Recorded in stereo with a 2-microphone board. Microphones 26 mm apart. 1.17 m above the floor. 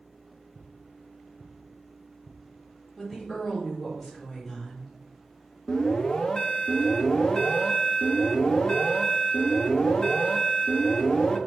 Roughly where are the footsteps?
Left.